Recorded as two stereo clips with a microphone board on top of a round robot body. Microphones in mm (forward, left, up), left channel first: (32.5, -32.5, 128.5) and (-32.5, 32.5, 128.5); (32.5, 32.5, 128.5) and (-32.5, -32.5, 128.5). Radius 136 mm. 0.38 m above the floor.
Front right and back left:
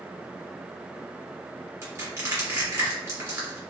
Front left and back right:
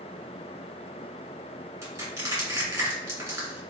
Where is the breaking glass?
I don't hear breaking glass.